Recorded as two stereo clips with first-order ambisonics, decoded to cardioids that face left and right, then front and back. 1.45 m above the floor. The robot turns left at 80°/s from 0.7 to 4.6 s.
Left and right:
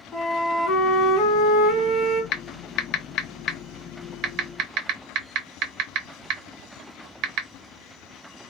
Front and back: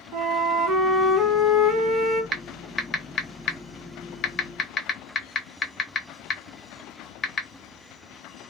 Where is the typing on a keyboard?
115° left, 0.6 m; by 7.5 s 65° right, 0.6 m.